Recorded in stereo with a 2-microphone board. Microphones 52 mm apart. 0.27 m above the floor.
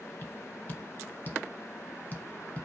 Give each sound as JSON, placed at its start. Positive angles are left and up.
{"t": 0.2, "sound": "tapping", "side_deg": 35, "distance_m": 0.8}